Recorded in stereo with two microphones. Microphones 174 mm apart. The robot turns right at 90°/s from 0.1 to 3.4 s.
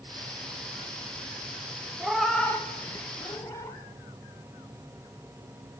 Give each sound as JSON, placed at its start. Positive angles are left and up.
{"t": 2.0, "sound": "a cat meowing", "side_deg": -5, "distance_m": 0.6}